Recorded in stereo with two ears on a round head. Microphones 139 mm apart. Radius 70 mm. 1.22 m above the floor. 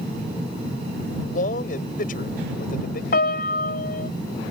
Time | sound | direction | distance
1.3 | a man speaking | 55° left (ahead or behind) | ?
3.1 | a piano | 65° left (ahead or behind) | ?